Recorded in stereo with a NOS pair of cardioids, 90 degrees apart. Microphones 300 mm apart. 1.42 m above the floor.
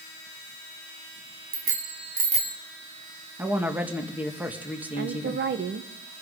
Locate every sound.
1.5 s a bicycle bell: 50° right, 2 m; by 2.6 s 15° right, 1.7 m
3.4 s a woman speaking: 5° right, 1.9 m
5.0 s a woman speaking: 40° right, 1.2 m